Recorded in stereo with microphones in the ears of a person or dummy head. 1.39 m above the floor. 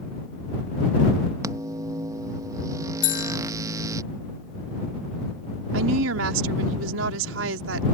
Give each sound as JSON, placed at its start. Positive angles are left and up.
{"t": 1.4, "sound": "a microwave", "side_deg": -20}
{"t": 3.0, "sound": "a bell", "side_deg": 60}
{"t": 5.7, "sound": "a woman speaking", "side_deg": -90}